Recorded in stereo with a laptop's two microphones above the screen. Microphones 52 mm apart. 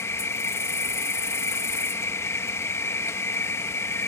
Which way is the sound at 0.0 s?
55° left (ahead or behind).